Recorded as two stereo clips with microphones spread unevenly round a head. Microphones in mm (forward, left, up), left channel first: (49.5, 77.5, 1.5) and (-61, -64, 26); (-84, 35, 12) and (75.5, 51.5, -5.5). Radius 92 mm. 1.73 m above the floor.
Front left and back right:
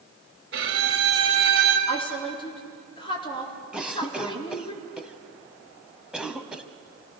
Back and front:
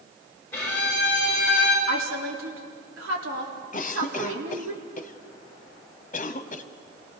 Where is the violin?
100° right, 4 m.